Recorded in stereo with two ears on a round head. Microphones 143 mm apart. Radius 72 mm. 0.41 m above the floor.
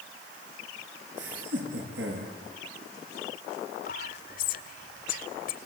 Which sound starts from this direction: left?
Whispering, at 3.9 s.